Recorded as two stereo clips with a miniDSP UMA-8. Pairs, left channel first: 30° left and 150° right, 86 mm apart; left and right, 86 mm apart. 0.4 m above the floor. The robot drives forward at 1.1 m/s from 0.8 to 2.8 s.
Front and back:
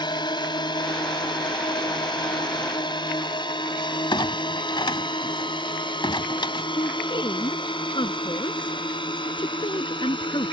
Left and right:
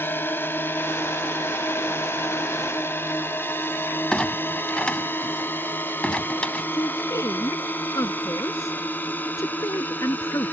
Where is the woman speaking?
40° left.